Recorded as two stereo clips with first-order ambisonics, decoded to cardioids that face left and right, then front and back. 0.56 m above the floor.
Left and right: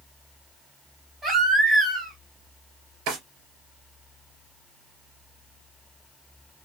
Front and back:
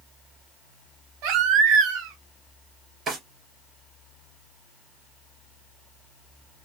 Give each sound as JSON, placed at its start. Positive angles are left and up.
{"t": 1.2, "sound": "a baby crying", "azimuth_deg": -160, "distance_m": 2.5}
{"t": 3.1, "sound": "a drawer", "azimuth_deg": -115, "distance_m": 3.0}